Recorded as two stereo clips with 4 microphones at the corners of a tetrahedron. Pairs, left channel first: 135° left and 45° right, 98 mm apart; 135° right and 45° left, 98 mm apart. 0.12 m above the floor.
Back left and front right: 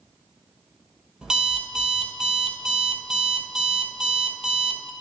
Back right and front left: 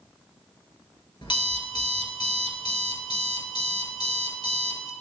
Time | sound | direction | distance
1.2 | an alarm clock | 125° right | 1.3 m